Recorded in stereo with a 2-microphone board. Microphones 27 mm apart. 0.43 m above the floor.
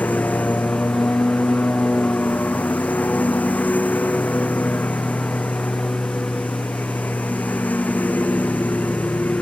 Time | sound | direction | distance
0.0 | a lawn mower | 85° left | ?